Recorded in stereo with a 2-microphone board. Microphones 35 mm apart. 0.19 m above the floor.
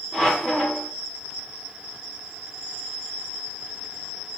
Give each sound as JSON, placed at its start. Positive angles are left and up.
{"t": 0.1, "sound": "a squeak", "side_deg": 10, "distance_m": 2.0}